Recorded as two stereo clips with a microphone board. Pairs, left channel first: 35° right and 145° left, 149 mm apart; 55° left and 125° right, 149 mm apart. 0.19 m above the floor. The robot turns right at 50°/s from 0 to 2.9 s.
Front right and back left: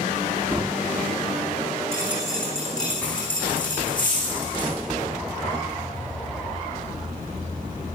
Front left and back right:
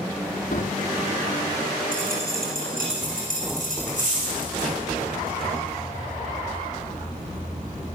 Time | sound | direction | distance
0.5 | a drawer | 75° left | 1.3 m
1.9 | a dropped coin | 145° right | 4 m